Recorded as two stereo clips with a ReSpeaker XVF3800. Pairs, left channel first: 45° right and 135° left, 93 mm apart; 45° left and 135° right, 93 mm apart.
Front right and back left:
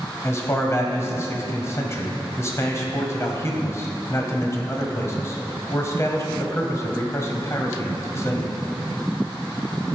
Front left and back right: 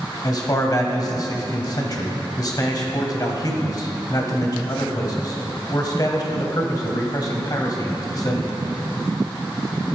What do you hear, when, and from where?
0.2 s a man speaking: 10° left, 1.6 m